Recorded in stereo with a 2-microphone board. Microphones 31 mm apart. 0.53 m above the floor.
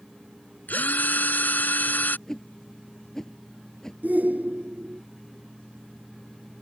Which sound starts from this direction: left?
A drill, at 0.7 s.